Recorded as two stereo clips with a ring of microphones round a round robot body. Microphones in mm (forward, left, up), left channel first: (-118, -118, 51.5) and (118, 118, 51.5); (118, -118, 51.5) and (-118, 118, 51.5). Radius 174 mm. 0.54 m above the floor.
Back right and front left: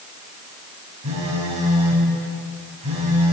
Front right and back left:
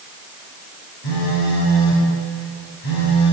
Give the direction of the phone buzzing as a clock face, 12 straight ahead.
1 o'clock.